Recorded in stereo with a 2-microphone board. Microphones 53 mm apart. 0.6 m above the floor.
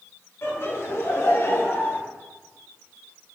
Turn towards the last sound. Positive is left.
turn(degrees=45)  # may be behind; listen again after turning